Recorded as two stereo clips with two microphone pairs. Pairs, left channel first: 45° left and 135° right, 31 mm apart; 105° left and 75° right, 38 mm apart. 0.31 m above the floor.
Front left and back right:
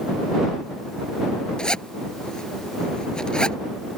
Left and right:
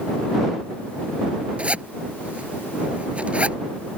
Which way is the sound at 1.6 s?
20° right.